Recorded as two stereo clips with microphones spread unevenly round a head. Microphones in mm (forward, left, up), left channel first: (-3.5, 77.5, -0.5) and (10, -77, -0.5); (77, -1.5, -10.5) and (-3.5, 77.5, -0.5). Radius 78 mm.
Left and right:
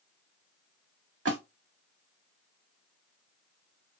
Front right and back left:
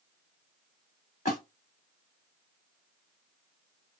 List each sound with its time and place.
1.2 s a splash: 90° right, 2.5 m